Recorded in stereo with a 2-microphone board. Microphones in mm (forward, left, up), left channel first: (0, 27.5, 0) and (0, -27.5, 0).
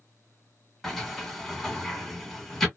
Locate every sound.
0.8 s a sliding door: 5° left (ahead or behind), 1.5 m